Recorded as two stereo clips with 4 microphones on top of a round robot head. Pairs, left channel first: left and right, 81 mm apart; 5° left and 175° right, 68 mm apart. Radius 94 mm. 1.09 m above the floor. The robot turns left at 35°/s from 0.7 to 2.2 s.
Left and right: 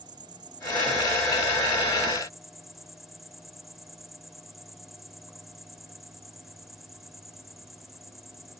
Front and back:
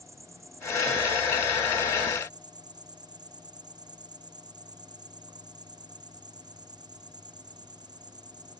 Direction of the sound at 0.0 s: 125° right.